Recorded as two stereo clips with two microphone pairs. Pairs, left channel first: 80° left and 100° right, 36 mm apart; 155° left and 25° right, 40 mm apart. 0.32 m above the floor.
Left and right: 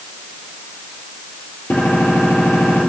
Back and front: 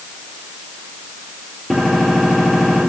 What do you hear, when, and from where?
1.7 s a gunshot: 60° left, 3.5 m